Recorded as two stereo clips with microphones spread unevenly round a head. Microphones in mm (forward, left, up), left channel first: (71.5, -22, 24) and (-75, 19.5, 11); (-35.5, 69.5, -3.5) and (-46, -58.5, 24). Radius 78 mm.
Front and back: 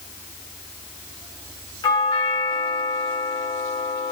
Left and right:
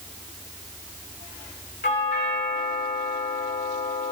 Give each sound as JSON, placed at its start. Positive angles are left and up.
{"t": 1.8, "sound": "a doorbell", "azimuth_deg": 50, "distance_m": 7.5}